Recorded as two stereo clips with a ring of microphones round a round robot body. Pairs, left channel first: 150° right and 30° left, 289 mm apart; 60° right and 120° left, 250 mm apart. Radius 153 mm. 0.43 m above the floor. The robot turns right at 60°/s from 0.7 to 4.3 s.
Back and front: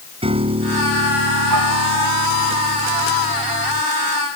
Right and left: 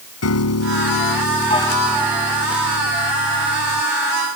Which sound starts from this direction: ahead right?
A piano, at 0.2 s.